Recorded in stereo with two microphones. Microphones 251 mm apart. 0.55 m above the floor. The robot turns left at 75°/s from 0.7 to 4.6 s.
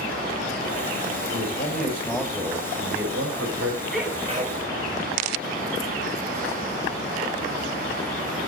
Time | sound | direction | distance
1.3 | a man speaking | 75° left | 3.5 m
3.9 | a sneeze | 5° left | 3.5 m